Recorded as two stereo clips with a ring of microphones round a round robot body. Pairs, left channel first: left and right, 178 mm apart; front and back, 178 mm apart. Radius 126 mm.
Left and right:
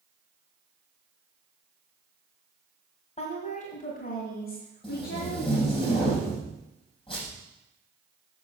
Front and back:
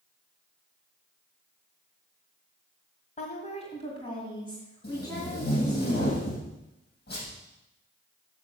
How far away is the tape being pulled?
About 6 m.